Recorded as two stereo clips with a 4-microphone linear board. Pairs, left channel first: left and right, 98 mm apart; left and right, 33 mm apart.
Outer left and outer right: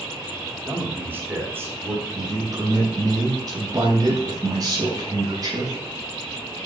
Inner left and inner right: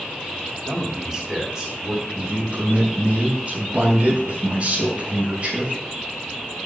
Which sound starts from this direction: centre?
A man speaking, at 0.7 s.